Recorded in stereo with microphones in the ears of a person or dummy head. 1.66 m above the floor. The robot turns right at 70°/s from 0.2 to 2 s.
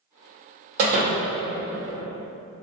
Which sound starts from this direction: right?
A door slam, at 0.8 s.